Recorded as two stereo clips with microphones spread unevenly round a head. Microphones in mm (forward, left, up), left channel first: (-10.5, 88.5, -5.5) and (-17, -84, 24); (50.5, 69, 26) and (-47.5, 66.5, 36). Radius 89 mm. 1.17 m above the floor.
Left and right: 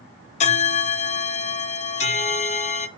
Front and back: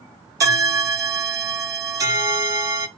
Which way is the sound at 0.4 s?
140° left.